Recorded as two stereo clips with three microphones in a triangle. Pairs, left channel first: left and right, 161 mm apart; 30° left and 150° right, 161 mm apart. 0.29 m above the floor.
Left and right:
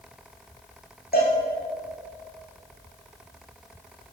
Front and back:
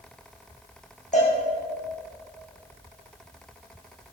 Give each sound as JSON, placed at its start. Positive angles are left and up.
{"t": 1.1, "sound": "a cowbell", "azimuth_deg": 70, "distance_m": 5.5}